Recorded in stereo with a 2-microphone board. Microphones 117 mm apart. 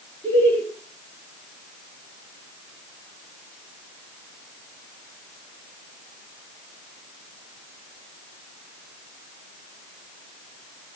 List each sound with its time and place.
0.2 s laughter: 15° left (ahead or behind), 3.5 m